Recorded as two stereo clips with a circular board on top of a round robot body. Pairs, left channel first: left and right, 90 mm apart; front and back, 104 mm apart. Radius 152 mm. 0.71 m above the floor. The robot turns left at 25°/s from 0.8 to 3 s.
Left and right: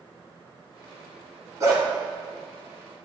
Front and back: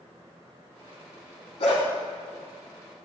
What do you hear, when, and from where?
1.6 s a dog barking: 35° right, 1.7 m; by 1.8 s 40° right, 1.7 m